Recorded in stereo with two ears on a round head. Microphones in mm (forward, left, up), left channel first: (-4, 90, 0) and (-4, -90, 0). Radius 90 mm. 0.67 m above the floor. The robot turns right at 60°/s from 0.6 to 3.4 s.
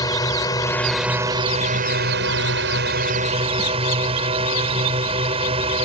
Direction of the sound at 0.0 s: 160° left.